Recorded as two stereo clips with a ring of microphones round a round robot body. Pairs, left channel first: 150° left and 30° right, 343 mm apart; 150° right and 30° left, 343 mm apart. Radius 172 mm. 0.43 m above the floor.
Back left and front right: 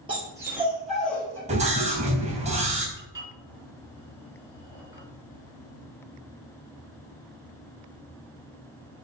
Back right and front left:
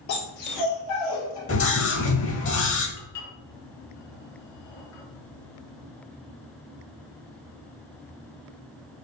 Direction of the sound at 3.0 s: 110° right.